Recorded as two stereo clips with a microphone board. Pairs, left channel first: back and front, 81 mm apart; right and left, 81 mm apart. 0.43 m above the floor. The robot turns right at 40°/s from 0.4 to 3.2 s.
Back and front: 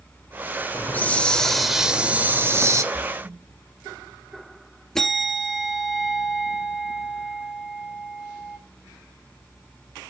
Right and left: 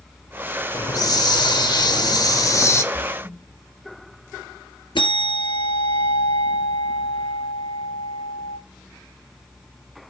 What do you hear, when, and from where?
0.7 s a hiss: 125° right, 0.7 m; by 2.8 s 40° right, 0.7 m
2.9 s a splash: 50° right, 2 m; by 3.4 s 40° right, 2 m
5.0 s a bell: 100° right, 1.6 m